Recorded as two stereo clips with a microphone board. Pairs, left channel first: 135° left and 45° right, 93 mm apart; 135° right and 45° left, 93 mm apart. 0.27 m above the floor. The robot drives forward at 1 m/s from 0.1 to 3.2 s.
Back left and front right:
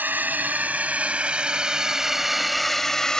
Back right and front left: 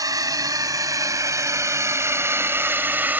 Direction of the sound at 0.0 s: 20° left.